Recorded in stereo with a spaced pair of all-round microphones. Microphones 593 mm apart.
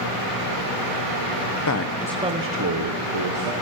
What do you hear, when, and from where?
1.7 s a man speaking: 35° left (ahead or behind), 0.6 m; by 3.5 s 60° right (ahead or behind), 1.2 m